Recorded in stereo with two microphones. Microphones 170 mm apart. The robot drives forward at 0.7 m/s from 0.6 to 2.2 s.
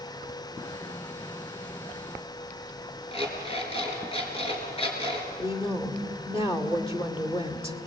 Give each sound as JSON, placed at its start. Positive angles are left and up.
{"t": 3.1, "sound": "an alarm clock", "side_deg": 35, "distance_m": 4.5}
{"t": 5.4, "sound": "a woman speaking", "side_deg": 35, "distance_m": 2.5}